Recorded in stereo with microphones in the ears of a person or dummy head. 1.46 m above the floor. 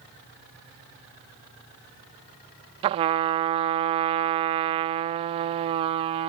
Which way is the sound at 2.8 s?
25° right (ahead or behind).